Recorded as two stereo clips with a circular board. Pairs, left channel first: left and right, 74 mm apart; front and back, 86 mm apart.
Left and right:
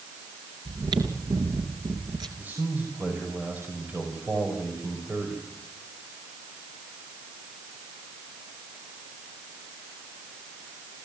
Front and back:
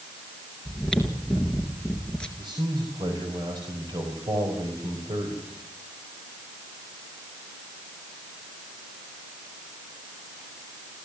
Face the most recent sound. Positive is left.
turn(degrees=-155)